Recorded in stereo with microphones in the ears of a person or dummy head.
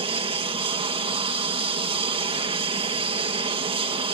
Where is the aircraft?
25° right (ahead or behind).